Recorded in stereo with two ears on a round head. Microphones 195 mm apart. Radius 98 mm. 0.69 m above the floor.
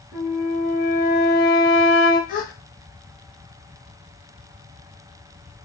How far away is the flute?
About 1.3 m.